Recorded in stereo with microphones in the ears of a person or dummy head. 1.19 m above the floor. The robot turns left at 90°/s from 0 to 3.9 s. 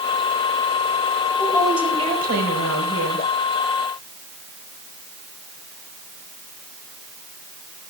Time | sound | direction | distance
1.4 | a woman speaking | 25° left | 5 m